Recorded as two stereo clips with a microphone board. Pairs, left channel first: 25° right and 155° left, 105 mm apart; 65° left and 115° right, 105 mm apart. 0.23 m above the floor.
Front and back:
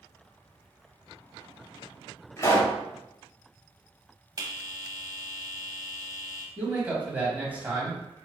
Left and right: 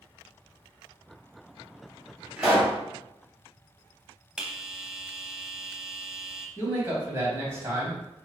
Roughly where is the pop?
Ahead right.